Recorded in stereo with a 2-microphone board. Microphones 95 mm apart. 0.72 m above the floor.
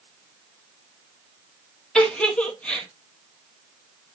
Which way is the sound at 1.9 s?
10° left (ahead or behind).